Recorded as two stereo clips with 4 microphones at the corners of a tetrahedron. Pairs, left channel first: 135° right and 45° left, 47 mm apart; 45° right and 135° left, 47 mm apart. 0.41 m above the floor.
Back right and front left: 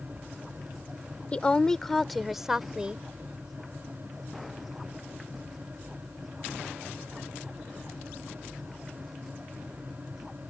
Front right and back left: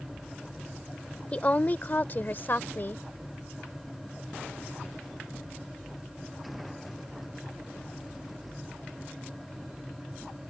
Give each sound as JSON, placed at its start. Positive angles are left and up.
{"t": 1.3, "sound": "a woman speaking", "azimuth_deg": -85}